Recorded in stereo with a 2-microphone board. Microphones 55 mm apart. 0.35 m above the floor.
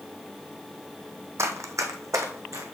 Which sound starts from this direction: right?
Running footsteps, at 1.4 s.